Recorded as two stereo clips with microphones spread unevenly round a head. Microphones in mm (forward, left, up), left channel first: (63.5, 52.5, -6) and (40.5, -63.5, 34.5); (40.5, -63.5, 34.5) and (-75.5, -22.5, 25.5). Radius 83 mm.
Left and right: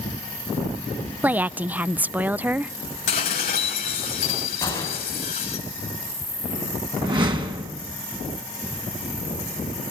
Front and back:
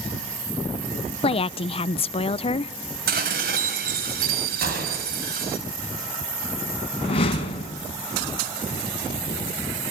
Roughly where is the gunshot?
Behind left.